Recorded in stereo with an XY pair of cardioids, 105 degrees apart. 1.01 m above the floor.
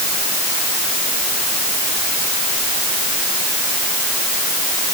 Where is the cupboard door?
I don't hear a cupboard door.